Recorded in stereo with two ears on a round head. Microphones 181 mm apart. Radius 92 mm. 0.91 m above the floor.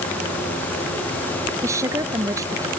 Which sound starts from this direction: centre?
A woman speaking, at 1.6 s.